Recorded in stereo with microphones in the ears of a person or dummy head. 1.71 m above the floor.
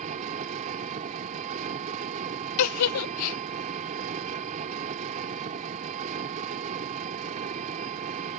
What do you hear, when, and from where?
0.0 s an engine running: 40° right (ahead or behind)
2.6 s a giggle: 80° left